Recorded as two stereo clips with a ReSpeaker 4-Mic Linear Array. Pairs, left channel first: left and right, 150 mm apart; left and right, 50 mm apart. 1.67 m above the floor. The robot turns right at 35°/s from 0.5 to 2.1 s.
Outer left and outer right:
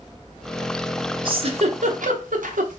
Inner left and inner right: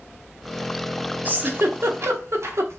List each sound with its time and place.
1.2 s a giggle: 35° right (ahead or behind), 0.6 m; by 2.8 s 65° right (ahead or behind), 0.6 m